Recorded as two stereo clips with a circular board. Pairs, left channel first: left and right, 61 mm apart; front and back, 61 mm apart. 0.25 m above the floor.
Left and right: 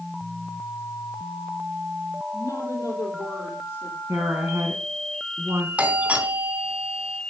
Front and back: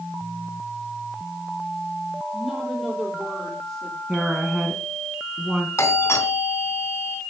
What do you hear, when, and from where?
2.3 s a woman speaking: 95° left, 8.5 m; by 4.0 s 85° left, 8 m
4.1 s a woman speaking: 100° right, 2.5 m
5.8 s a doorbell: 30° right, 3 m